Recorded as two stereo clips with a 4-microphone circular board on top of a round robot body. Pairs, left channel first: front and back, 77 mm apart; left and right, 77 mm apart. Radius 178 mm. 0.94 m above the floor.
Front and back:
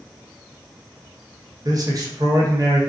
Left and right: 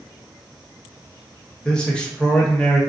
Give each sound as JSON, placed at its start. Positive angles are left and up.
{"t": 1.6, "sound": "a man speaking", "azimuth_deg": 165, "distance_m": 1.0}